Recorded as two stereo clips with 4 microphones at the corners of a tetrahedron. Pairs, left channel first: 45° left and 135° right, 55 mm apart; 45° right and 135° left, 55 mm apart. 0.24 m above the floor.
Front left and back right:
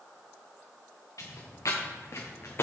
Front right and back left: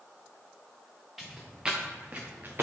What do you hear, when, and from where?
1.2 s footsteps: 50° left, 1.6 m; by 2.6 s 90° left, 1.4 m